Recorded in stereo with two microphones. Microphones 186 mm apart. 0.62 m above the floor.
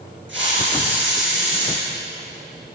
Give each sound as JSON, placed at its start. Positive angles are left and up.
{"t": 0.3, "sound": "a hiss", "side_deg": -90, "distance_m": 5.5}